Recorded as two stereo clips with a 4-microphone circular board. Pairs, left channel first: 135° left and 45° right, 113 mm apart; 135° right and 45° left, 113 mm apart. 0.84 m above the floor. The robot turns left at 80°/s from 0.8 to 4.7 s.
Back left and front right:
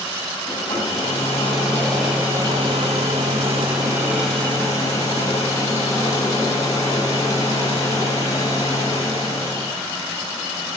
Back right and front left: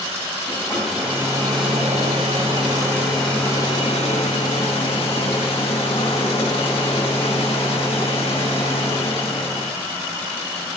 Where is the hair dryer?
145° left, 5 m; by 9.7 s 165° right, 5 m.